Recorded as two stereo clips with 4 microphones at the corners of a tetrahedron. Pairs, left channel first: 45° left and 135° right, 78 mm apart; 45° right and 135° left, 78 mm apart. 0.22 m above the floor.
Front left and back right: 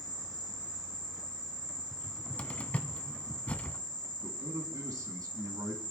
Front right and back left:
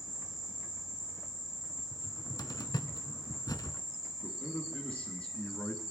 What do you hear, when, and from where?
0.0 s an insect: 135° right, 7 m
1.9 s a cupboard door: 25° right, 1.0 m
4.2 s a man speaking: 115° right, 2.5 m